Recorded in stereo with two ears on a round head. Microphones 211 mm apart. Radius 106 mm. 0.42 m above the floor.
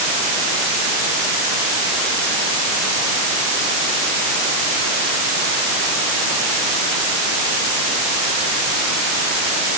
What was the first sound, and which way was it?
Only background noise.